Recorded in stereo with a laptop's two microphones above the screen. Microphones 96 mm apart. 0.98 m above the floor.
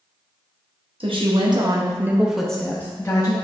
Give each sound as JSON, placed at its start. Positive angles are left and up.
{"t": 1.0, "sound": "a woman speaking", "side_deg": -70, "distance_m": 1.1}